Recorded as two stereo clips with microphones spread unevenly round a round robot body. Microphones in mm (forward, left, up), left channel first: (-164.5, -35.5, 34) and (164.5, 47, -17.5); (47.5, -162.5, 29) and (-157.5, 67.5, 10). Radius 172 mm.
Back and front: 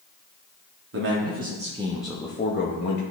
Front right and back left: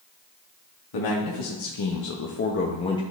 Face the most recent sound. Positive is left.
turn(degrees=-125)